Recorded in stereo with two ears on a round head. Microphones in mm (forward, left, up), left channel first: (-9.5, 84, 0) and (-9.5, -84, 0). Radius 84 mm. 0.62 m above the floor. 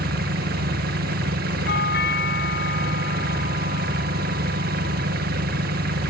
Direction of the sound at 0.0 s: 50° right (ahead or behind).